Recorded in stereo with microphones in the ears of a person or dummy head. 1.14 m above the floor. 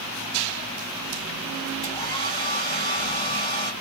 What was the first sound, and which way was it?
A hair dryer, 30° left (ahead or behind).